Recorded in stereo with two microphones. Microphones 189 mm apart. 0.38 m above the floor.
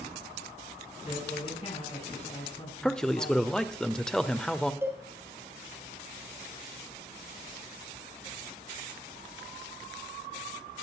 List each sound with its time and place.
1.0 s a man speaking: 35° left (ahead or behind), 4 m
2.8 s a man speaking: 5° left (ahead or behind), 1.0 m
4.8 s a cowbell: 10° right (ahead or behind), 3.5 m